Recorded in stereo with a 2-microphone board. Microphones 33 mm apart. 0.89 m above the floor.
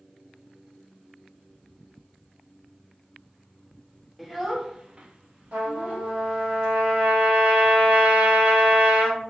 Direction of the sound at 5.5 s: 65° right (ahead or behind).